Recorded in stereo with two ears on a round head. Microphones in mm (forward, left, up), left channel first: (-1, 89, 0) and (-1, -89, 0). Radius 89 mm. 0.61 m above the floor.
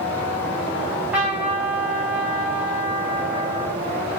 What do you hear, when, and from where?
0.8 s a trumpet: 5° right (ahead or behind), 3 m